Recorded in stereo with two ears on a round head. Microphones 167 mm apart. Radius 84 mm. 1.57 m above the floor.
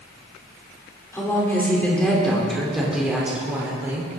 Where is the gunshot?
No gunshot in this recording.